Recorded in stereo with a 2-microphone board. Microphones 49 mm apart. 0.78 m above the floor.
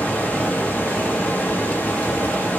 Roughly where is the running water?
Left.